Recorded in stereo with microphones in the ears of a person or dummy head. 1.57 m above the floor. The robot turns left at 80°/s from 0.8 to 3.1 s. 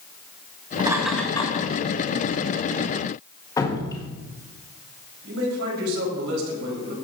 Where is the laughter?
25° right (ahead or behind), 2.5 m; by 1.7 s 45° left (ahead or behind), 2.5 m.